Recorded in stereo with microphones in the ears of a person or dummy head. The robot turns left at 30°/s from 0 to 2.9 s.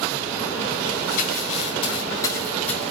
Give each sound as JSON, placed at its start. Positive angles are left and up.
{"t": 1.1, "sound": "crumpling", "side_deg": 60, "distance_m": 9.0}